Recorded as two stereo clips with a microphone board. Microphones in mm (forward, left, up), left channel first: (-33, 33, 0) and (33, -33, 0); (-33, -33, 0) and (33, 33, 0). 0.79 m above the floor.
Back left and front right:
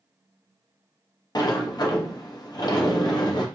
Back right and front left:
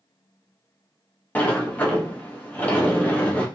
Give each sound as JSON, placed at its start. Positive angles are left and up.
{"t": 1.4, "sound": "a sliding door", "azimuth_deg": 155, "distance_m": 0.7}